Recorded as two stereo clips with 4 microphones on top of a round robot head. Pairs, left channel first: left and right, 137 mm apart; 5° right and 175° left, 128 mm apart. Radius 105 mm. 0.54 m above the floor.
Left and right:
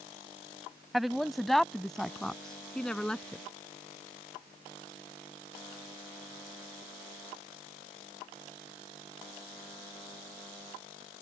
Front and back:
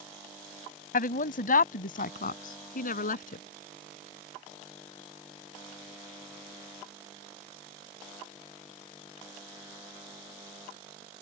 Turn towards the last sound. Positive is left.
turn(degrees=5)